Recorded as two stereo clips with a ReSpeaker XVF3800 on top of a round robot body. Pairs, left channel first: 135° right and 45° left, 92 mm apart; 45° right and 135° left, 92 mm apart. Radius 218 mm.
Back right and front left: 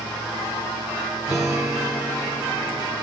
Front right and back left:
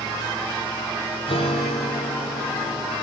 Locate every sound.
1.3 s a guitar: 40° right, 2.5 m